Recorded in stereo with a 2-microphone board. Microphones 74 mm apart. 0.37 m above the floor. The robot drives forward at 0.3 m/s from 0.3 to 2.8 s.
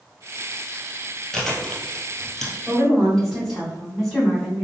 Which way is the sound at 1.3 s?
5° left (ahead or behind).